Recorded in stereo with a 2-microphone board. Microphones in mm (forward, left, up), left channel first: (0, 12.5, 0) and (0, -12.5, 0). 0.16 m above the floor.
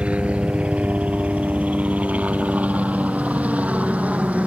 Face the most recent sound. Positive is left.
turn(degrees=-70)  # may be behind; listen again after turning